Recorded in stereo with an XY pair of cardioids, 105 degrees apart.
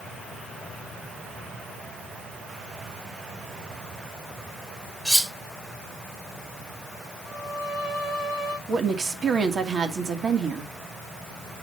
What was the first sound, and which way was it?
Cutlery clinking, 10° right.